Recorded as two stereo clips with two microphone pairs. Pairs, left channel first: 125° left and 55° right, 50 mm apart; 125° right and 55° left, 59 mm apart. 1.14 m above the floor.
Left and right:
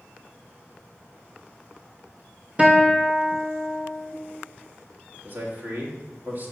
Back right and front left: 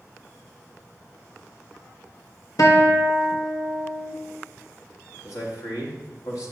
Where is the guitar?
120° right, 1.1 m.